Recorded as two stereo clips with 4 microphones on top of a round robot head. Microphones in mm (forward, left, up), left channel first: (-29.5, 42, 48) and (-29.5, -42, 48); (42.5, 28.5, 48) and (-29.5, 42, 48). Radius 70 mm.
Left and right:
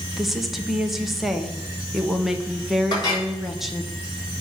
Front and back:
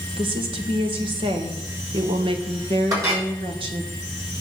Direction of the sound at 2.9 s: 125° left.